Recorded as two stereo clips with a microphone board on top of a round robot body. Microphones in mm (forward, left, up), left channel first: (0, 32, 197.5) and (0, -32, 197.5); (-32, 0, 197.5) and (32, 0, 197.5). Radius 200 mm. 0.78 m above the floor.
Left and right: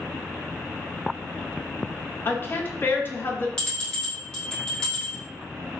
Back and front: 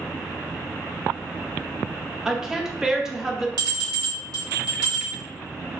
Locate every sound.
2.2 s a woman speaking: 80° left, 0.9 m
3.6 s a bell: 15° left, 1.2 m